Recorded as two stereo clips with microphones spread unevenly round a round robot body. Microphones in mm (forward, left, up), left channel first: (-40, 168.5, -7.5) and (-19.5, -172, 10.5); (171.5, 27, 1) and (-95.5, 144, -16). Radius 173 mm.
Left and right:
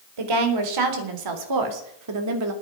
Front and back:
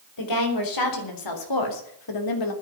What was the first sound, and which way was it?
A woman speaking, 65° right.